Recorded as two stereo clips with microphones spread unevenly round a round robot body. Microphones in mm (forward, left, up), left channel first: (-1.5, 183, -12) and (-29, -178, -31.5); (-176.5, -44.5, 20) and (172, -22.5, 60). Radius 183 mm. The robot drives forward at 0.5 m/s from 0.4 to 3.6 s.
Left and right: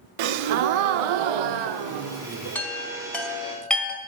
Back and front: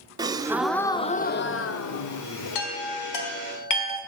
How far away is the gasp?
About 0.7 m.